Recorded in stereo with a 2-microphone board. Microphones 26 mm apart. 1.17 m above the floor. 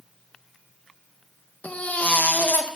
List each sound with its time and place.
1.6 s a baby crying: 60° left (ahead or behind), 0.6 m